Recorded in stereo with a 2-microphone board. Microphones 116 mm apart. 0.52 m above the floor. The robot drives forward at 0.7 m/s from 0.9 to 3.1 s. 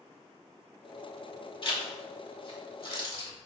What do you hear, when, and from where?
1.6 s a zipper: 50° left (ahead or behind), 1.7 m